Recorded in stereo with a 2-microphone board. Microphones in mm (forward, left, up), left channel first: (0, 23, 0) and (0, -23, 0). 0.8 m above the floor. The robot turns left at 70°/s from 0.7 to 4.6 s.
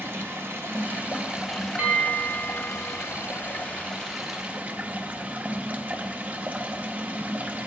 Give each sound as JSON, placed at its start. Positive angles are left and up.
{"t": 0.0, "sound": "running water", "azimuth_deg": -120, "distance_m": 1.1}
{"t": 1.8, "sound": "a bell", "azimuth_deg": -150, "distance_m": 2.5}